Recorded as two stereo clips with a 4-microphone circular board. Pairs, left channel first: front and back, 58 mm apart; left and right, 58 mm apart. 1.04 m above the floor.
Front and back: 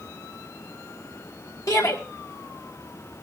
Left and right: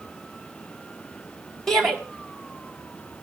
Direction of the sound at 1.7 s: 5° left.